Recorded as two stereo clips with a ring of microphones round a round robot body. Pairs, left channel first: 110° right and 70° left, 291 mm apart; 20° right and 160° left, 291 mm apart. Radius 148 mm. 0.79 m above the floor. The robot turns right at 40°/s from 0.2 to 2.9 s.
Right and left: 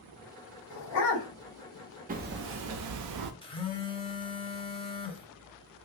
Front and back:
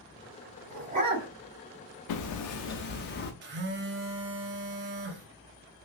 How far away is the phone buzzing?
About 0.6 m.